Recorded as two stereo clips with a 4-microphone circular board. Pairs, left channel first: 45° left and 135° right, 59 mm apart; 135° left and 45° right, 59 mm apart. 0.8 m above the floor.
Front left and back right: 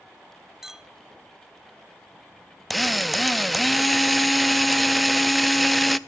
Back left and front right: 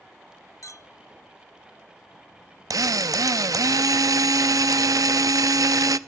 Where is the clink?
140° left, 0.5 m.